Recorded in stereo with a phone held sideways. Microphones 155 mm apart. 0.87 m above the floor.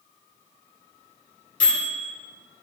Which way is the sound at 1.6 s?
65° left (ahead or behind).